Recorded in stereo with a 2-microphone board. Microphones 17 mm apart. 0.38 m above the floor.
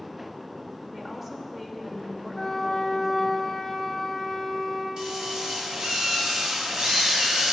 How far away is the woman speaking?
About 1.2 m.